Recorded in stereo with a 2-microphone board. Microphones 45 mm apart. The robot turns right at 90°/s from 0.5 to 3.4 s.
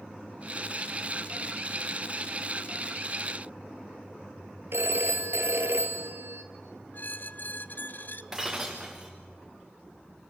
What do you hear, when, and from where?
4.7 s a phone ringing: 70° right (ahead or behind), 1.9 m
6.9 s a squeak: 50° left (ahead or behind), 0.8 m
8.3 s breaking glass: 10° right (ahead or behind), 4 m